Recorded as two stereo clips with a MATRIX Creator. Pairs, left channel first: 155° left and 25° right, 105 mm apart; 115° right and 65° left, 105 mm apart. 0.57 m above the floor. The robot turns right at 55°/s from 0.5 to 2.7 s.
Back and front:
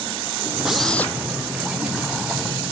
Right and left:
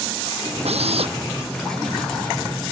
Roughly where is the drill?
Ahead left.